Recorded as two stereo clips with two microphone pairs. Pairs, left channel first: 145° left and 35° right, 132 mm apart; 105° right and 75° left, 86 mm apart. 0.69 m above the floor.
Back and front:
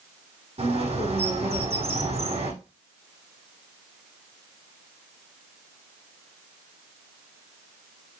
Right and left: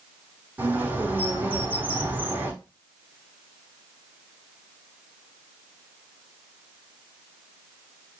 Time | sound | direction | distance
0.6 | a bird | 5° left | 5 m